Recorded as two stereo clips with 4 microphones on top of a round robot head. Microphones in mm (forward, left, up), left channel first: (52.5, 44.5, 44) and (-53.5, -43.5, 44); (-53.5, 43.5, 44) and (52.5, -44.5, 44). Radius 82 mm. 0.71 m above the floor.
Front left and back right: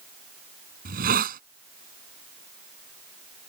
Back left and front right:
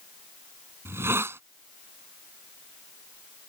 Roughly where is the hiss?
Behind right.